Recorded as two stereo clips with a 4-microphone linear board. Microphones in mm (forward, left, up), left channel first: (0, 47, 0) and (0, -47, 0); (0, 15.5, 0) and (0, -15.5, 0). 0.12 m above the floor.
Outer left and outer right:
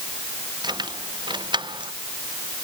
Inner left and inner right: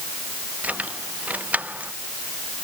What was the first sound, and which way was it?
Keys jangling, 50° right (ahead or behind).